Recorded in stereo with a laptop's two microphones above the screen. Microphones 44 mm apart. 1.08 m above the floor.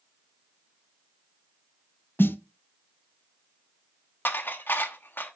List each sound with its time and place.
2.2 s a snare drum: 60° left (ahead or behind), 0.6 m
4.2 s dishes clattering: 55° left (ahead or behind), 1.1 m